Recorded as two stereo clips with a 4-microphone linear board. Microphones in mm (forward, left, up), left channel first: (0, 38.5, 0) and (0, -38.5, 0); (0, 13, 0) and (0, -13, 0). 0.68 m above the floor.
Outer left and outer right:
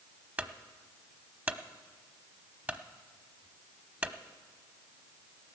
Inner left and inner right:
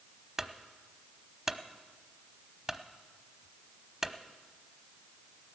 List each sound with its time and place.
0.4 s a clunk: 20° right (ahead or behind), 0.8 m